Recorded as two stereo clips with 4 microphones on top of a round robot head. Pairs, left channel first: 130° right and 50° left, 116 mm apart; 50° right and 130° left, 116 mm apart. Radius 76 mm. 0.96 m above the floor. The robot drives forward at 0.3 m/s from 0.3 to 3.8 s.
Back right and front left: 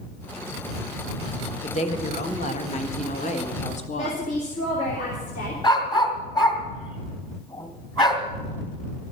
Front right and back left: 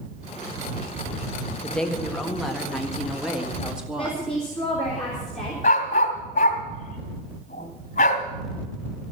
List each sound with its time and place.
1.6 s a woman speaking: 130° right, 1.5 m; by 4.2 s 145° right, 2.0 m
4.0 s a woman speaking: 130° right, 3 m
5.6 s a dog barking: 80° right, 2 m